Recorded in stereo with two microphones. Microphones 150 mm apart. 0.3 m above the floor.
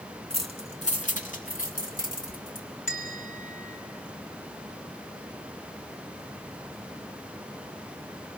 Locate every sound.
0.3 s keys jangling: 35° left (ahead or behind), 1.7 m; by 2.7 s 65° left (ahead or behind), 2 m
2.9 s a bell: 65° left (ahead or behind), 3 m